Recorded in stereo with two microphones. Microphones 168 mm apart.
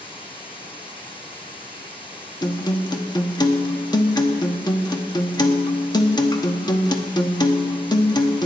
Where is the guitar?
25° left (ahead or behind), 1.0 m.